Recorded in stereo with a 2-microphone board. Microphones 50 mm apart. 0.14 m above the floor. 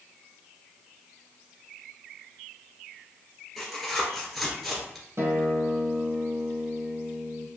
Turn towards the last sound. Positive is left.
turn(degrees=-50)  # may be behind; listen again after turning